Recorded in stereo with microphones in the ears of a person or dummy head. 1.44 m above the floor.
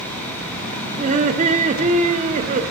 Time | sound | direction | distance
1.0 | laughter | 40° right (ahead or behind) | 0.6 m